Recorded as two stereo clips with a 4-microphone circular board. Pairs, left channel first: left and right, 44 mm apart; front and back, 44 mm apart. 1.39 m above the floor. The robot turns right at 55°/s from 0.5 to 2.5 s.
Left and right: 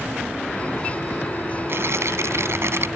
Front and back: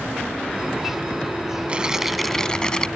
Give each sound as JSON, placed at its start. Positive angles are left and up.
{"t": 1.7, "sound": "tearing paper", "azimuth_deg": -115}